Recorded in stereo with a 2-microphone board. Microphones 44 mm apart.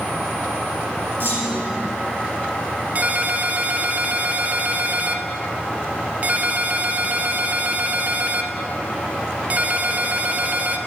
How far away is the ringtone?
About 0.5 m.